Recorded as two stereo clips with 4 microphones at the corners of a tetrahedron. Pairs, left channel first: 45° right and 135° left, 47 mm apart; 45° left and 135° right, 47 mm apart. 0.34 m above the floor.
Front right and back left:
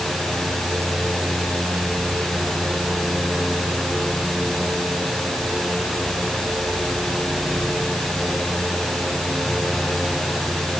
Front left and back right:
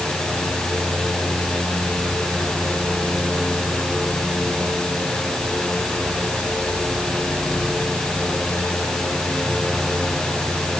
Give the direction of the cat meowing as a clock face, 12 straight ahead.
No cat meowing in this recording.